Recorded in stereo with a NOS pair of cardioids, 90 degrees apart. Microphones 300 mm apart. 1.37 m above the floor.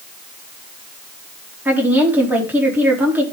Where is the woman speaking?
5° right, 3.5 m.